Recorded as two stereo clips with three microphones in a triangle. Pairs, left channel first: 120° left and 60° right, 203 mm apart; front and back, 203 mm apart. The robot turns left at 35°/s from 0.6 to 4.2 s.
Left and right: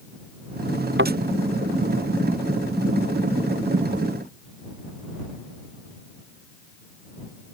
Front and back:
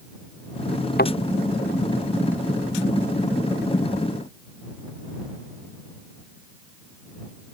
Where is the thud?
40° right; by 1.1 s 45° right.